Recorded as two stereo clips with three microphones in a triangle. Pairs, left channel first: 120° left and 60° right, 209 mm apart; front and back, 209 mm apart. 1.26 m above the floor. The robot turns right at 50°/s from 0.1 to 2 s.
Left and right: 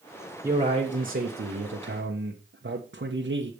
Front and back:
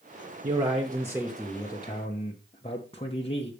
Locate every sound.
0.4 s a man speaking: 135° right, 1.2 m; by 3.5 s 55° right, 1.2 m